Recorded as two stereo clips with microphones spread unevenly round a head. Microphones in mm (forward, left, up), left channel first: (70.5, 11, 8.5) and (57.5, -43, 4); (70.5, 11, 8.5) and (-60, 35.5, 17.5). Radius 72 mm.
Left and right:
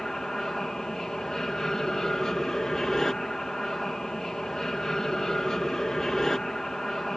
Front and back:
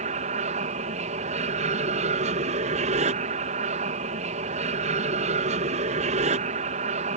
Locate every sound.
0.0 s an aircraft: 160° left